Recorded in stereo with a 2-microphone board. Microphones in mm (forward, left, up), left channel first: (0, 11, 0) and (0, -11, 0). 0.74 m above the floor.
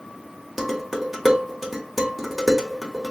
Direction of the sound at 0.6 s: 10° right (ahead or behind).